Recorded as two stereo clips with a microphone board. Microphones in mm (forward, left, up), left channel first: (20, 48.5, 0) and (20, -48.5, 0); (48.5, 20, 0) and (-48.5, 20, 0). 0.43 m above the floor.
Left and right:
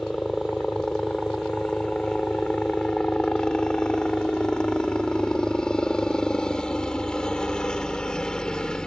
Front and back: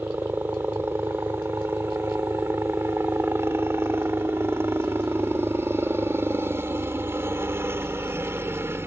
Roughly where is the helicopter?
Behind.